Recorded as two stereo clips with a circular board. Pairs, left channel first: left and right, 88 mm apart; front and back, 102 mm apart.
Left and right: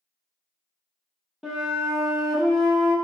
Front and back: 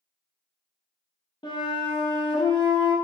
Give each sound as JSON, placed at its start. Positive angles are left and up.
{"t": 1.4, "sound": "a flute", "azimuth_deg": -5, "distance_m": 0.8}